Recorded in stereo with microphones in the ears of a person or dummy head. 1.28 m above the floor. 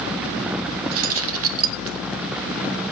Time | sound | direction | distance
0.9 | keys jangling | 70° right (ahead or behind) | 1.0 m